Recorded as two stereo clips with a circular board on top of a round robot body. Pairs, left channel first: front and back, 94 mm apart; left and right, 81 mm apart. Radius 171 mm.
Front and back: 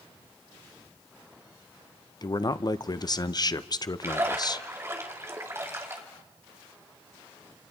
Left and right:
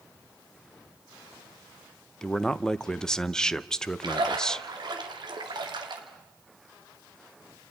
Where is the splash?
115° right, 2.5 m.